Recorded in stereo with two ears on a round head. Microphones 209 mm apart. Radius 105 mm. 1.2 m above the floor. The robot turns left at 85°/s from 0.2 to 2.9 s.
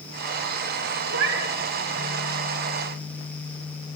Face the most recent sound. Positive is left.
turn(degrees=130)